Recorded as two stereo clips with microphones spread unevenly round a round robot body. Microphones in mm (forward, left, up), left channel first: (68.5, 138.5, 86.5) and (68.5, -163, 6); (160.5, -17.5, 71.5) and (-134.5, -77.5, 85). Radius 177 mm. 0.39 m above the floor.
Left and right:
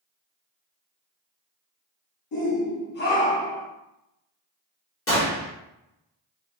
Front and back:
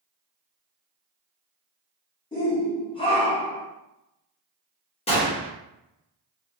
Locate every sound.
2.3 s a shout: 75° left, 0.9 m; by 3.7 s 35° right, 0.8 m
5.1 s a gunshot: 60° left, 1.5 m